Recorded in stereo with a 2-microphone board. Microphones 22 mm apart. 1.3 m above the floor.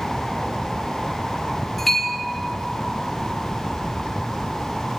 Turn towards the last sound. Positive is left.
turn(degrees=10)  # may be behind; listen again after turning